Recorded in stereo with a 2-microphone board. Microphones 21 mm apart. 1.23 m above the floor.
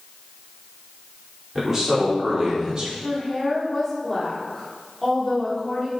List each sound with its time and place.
1.6 s a man speaking: 10° right (ahead or behind), 4 m; by 2.9 s 30° right (ahead or behind), 3.5 m
3.0 s a woman speaking: 5° left (ahead or behind), 4 m